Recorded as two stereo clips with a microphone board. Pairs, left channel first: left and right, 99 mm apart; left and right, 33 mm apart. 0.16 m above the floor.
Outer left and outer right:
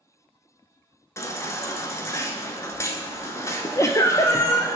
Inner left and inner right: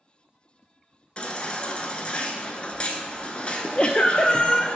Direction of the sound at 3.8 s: 30° left (ahead or behind).